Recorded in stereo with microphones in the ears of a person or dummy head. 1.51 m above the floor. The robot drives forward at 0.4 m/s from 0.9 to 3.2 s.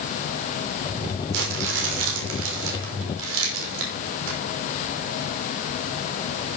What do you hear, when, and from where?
1.3 s crumpling: 70° right (ahead or behind), 6 m; by 4.4 s 75° right (ahead or behind), 5.5 m